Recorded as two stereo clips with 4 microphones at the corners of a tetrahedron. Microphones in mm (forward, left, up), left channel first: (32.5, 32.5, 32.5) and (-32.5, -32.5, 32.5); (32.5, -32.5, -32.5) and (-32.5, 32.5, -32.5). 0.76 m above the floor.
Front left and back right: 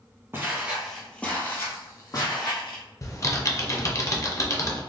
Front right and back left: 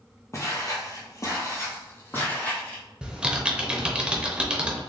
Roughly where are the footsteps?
Right.